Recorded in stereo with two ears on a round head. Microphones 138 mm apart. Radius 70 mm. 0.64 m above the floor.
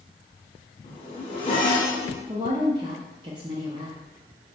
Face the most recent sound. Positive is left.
turn(degrees=-30)  # may be behind; listen again after turning